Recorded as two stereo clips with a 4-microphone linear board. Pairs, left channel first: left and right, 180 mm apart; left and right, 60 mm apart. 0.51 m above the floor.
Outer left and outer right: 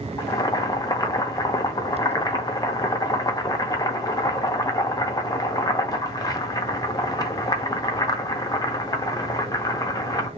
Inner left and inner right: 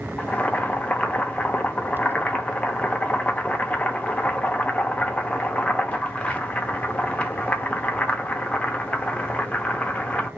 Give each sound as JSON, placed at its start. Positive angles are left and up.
{"t": 0.2, "sound": "boiling", "side_deg": 20, "distance_m": 0.5}